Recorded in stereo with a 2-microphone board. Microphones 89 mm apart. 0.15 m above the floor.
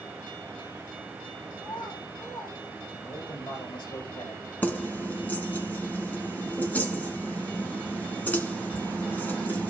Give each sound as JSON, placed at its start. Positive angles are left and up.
{"t": 1.6, "sound": "a child speaking", "side_deg": 70, "distance_m": 6.0}
{"t": 3.0, "sound": "a man speaking", "side_deg": 60, "distance_m": 7.0}
{"t": 4.6, "sound": "keys jangling", "side_deg": 20, "distance_m": 1.2}